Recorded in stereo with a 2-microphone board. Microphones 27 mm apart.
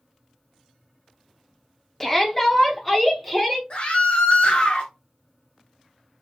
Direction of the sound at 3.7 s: 45° left (ahead or behind).